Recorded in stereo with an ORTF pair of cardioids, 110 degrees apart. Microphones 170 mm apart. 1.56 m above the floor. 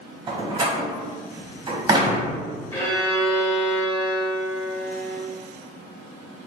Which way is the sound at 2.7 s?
10° left.